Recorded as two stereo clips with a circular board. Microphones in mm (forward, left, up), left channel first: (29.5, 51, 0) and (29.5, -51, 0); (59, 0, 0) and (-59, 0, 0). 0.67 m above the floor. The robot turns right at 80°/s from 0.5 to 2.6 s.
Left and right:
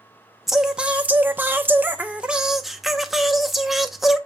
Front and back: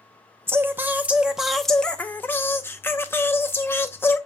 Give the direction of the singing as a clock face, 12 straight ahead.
6 o'clock.